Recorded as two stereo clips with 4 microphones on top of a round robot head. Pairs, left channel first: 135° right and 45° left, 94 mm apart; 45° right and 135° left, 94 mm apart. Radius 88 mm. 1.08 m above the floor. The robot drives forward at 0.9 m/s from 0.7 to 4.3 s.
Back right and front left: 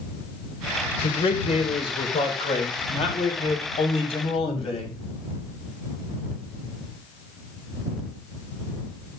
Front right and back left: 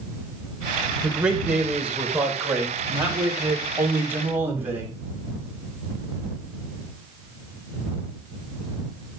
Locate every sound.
1.0 s a man speaking: 140° right, 5 m; by 5.0 s 155° right, 7.5 m